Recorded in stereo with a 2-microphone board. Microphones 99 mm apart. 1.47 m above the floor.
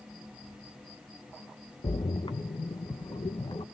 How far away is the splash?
About 1.0 m.